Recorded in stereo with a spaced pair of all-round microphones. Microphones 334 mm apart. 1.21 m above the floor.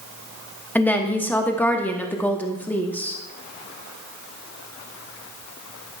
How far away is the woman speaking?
About 0.8 m.